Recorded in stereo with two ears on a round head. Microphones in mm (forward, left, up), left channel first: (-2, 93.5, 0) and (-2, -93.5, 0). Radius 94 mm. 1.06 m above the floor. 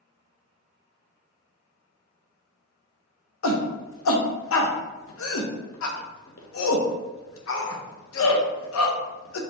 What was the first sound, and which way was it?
A shout, 70° left (ahead or behind).